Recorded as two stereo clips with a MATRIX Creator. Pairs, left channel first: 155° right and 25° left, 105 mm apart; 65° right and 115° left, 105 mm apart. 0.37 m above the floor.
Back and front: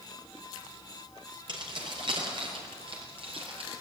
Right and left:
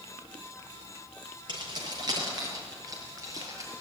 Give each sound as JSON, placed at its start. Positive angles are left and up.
{"t": 1.5, "sound": "keys jangling", "azimuth_deg": 65, "distance_m": 5.0}